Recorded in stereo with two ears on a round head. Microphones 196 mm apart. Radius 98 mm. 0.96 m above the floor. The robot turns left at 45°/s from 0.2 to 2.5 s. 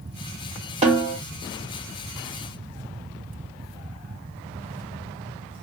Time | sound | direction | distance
0.8 | a snare drum | 30° right (ahead or behind) | 1.2 m